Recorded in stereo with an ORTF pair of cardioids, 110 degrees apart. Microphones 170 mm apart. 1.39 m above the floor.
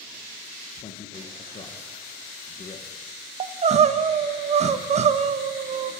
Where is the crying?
40° right, 1.0 m.